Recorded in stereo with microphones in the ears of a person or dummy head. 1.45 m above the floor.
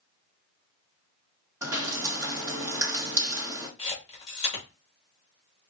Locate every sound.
1.6 s dripping: 20° right (ahead or behind), 1.5 m
3.8 s a camera shutter: 40° left (ahead or behind), 2.5 m